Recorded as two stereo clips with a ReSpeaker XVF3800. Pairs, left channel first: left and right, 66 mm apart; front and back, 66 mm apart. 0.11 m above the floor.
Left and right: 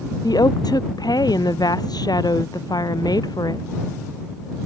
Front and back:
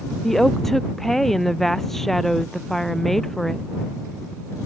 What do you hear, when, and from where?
0.2 s a woman speaking: 85° left